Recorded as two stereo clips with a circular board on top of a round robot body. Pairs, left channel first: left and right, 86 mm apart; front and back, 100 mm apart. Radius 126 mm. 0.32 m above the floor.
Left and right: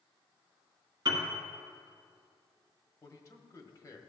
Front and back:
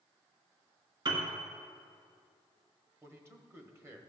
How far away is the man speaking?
About 1.4 m.